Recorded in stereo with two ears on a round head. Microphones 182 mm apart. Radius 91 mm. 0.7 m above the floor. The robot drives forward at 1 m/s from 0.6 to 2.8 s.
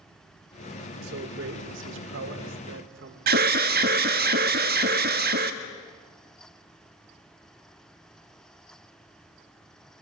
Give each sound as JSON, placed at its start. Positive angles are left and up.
{"t": 1.0, "sound": "a man speaking", "side_deg": -55, "distance_m": 3.0}
{"t": 3.3, "sound": "an alarm", "side_deg": -50, "distance_m": 1.5}